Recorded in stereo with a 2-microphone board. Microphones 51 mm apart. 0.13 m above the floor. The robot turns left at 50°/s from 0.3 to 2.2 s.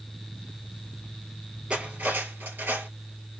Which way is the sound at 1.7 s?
25° right (ahead or behind).